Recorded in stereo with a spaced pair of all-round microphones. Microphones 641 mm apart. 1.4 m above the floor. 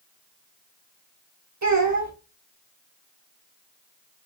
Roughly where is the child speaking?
Right.